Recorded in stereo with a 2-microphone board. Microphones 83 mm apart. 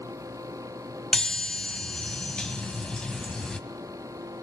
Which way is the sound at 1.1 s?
10° left (ahead or behind).